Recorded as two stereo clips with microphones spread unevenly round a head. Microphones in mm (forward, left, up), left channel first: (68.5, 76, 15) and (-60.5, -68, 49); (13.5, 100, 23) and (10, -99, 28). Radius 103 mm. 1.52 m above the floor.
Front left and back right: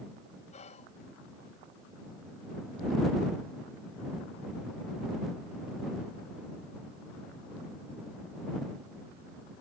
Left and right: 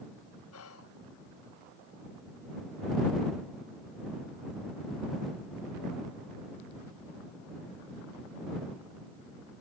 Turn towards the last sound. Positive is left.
turn(degrees=105)